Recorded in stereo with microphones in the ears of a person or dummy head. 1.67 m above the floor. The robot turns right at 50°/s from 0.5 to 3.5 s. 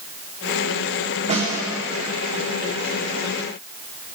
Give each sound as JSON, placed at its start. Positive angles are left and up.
{"t": 1.3, "sound": "a snare drum", "side_deg": -30, "distance_m": 1.3}